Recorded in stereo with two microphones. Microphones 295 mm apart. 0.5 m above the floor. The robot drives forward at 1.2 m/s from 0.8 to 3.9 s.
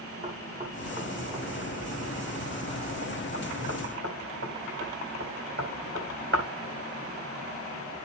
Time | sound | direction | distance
0.2 | knocking | 20° right (ahead or behind) | 5.5 m